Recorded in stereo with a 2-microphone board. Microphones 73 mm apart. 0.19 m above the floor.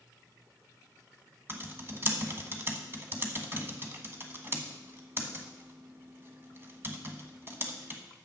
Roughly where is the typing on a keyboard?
Right.